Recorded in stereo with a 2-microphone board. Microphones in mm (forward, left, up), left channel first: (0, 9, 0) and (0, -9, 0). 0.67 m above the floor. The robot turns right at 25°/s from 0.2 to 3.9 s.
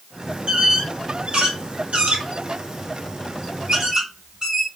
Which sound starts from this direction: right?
A squeak, at 0.5 s.